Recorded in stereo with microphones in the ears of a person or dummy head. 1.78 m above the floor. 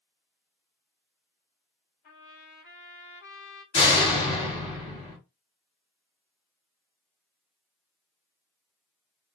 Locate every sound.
2.0 s a trumpet: 35° left (ahead or behind), 1.6 m
3.7 s a door slam: 25° left (ahead or behind), 1.9 m